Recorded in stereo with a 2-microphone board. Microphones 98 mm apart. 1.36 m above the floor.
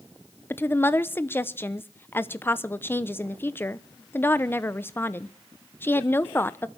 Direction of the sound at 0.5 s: 20° left (ahead or behind).